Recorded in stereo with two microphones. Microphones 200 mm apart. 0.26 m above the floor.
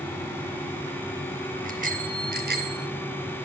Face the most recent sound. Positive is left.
turn(degrees=-55)  # may be behind; listen again after turning